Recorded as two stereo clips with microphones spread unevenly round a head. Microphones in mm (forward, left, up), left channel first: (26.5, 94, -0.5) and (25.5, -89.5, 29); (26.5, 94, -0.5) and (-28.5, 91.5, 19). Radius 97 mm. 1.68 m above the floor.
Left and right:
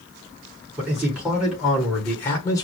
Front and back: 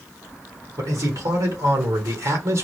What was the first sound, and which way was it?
A man speaking, 170° right.